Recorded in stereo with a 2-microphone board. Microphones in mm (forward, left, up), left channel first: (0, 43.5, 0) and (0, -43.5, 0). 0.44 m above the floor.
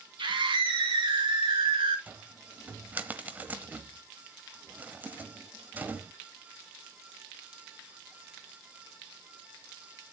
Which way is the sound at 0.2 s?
70° right (ahead or behind).